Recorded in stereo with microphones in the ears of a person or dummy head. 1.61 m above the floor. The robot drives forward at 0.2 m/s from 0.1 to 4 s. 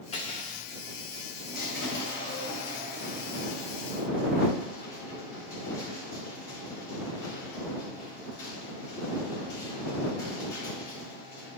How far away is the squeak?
About 3 m.